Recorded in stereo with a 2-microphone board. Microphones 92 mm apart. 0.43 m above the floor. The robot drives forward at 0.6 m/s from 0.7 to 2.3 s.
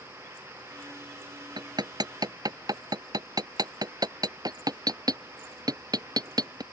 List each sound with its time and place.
1.6 s hammering: 55° right (ahead or behind); by 6.6 s 45° right (ahead or behind)